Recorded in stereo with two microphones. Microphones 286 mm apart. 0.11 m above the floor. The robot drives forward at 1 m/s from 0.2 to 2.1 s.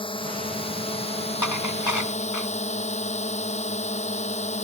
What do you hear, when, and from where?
0.0 s a drone: 20° left (ahead or behind); by 4.7 s 25° left (ahead or behind)
1.4 s dishes clattering: 85° left